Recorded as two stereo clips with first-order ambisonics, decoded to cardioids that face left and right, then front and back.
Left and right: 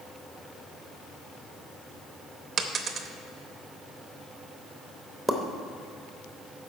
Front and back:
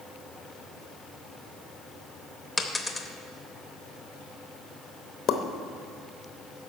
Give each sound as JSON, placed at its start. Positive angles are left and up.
{"t": 2.6, "sound": "a dropped coin", "azimuth_deg": -80, "distance_m": 0.7}
{"t": 5.3, "sound": "a pop", "azimuth_deg": 5, "distance_m": 0.7}